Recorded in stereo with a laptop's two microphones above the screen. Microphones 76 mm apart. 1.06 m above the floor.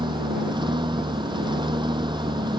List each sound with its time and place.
0.0 s a lawn mower: 80° right